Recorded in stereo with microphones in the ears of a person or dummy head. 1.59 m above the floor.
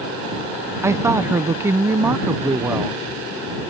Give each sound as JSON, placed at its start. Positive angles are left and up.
{"t": 0.8, "sound": "a woman speaking", "side_deg": -15}